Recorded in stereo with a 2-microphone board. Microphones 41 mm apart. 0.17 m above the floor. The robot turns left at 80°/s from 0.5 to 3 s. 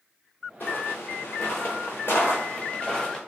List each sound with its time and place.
0.6 s footsteps: 50° left (ahead or behind), 0.8 m; by 3.2 s 10° left (ahead or behind), 1.3 m